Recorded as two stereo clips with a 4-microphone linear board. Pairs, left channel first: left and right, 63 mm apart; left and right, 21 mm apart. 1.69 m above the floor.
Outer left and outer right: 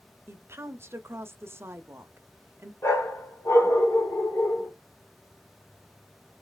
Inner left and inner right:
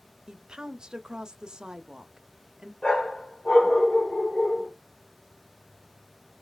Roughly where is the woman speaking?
Right.